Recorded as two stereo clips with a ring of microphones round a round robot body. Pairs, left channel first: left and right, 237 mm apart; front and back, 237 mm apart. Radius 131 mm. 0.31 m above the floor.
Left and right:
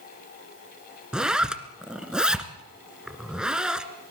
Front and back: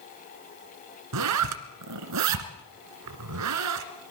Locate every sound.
1.1 s a zipper: 175° right, 1.7 m